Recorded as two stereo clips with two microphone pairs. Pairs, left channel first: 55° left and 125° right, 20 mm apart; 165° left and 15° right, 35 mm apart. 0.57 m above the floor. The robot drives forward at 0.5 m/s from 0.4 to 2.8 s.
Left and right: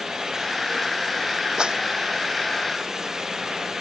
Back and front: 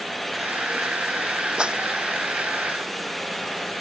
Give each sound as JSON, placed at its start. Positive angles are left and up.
{"t": 1.6, "sound": "a clap", "azimuth_deg": -75}